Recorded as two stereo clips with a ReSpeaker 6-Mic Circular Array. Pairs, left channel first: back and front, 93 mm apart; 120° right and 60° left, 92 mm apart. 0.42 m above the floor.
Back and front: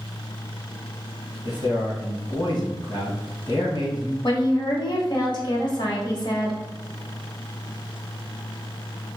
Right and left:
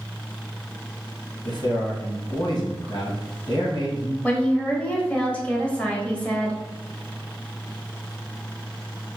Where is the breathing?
No breathing in this recording.